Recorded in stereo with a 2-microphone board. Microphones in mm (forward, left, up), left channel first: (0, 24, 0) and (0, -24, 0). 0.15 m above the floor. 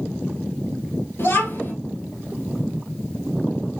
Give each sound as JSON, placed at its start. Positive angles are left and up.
{"t": 1.2, "sound": "a child speaking", "side_deg": 60, "distance_m": 1.6}